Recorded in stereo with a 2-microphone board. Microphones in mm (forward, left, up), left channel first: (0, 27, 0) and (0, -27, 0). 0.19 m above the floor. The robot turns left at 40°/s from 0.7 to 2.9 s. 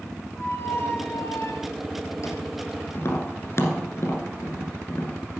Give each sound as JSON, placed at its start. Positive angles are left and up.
{"t": 0.4, "sound": "a squeak", "azimuth_deg": 125, "distance_m": 1.1}
{"t": 3.0, "sound": "tapping", "side_deg": 55, "distance_m": 1.5}